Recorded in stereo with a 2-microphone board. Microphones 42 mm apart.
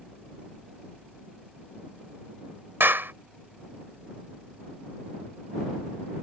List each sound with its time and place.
2.8 s a clap: 60° right (ahead or behind)